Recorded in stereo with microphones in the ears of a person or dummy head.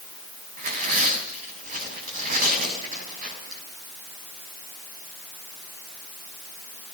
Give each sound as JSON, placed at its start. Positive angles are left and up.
{"t": 0.6, "sound": "tearing paper", "side_deg": -45, "distance_m": 6.0}